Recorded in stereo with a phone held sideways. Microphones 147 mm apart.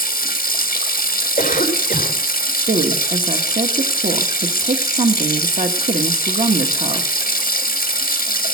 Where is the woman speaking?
60° right (ahead or behind), 1.1 m.